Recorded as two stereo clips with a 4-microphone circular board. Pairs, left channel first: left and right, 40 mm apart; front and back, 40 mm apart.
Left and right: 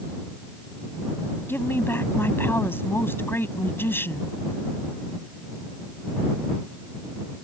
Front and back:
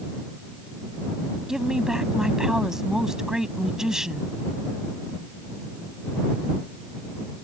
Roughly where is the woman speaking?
Left.